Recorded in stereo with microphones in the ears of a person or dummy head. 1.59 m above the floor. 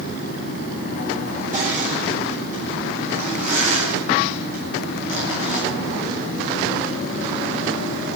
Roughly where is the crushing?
Right.